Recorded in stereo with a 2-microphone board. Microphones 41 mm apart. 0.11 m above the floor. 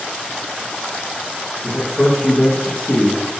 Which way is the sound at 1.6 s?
10° left (ahead or behind).